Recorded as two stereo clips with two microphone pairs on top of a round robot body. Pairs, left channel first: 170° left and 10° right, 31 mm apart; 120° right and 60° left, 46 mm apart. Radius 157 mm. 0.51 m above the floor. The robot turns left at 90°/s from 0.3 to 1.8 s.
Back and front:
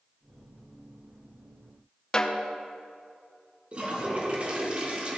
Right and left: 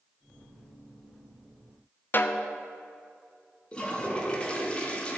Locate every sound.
2.1 s a snare drum: 125° right, 0.9 m
3.7 s a toilet flushing: 60° right, 1.6 m